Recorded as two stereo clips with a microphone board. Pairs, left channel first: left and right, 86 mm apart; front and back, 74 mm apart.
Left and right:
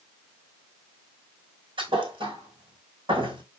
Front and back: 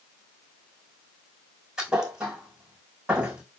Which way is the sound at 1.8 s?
100° right.